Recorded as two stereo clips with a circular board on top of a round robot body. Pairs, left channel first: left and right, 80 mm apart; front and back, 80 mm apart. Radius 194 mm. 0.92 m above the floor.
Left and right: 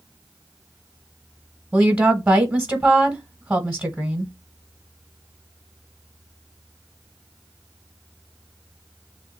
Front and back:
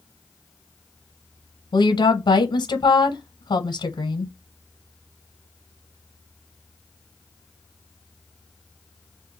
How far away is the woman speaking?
About 1.0 m.